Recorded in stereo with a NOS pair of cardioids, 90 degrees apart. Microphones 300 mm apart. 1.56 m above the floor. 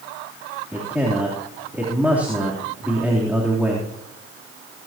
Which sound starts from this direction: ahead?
A man speaking, at 0.7 s.